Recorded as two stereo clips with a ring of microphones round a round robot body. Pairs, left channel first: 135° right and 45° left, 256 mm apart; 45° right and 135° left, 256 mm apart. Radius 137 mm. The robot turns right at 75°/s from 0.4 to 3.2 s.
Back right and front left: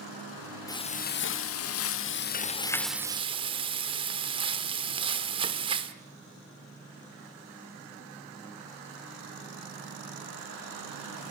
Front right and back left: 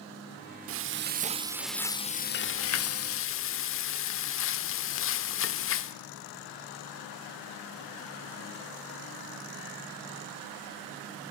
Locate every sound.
0.7 s frying: 150° left, 0.9 m; by 6.0 s 20° right, 0.9 m